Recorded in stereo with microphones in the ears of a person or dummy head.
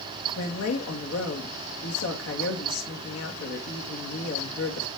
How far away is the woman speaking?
About 1.9 m.